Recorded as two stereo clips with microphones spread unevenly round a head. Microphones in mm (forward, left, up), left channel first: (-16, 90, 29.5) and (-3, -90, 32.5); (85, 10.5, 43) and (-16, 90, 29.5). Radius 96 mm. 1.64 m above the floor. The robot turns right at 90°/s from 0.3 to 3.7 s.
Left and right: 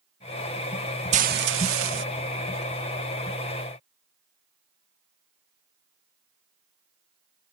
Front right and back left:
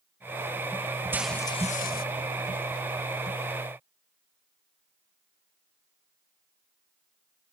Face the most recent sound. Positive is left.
turn(degrees=90)